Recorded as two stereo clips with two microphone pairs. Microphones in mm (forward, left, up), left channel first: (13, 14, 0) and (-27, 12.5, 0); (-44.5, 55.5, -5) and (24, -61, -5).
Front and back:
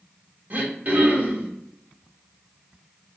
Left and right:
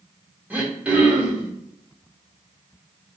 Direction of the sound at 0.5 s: 140° right.